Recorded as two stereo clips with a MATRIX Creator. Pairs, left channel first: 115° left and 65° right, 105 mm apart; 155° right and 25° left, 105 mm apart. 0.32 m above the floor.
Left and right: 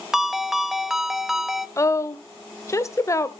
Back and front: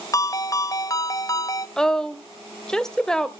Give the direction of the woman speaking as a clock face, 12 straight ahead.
8 o'clock.